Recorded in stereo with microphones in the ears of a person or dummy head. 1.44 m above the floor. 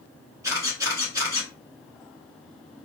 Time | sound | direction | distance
0.4 | a camera shutter | 10° right (ahead or behind) | 1.6 m